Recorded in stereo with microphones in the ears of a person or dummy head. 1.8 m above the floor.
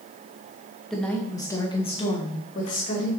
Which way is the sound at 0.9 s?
10° left (ahead or behind).